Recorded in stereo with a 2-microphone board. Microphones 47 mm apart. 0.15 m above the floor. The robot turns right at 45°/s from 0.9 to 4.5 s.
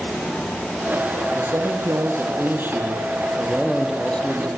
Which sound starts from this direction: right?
A man speaking, at 1.4 s.